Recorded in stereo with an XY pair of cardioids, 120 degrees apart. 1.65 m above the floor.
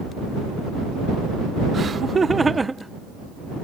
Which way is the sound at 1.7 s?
35° right.